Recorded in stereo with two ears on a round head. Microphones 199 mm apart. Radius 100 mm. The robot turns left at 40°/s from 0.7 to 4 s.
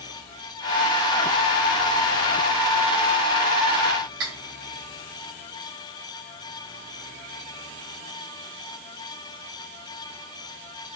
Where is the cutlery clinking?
55° right (ahead or behind), 3 m.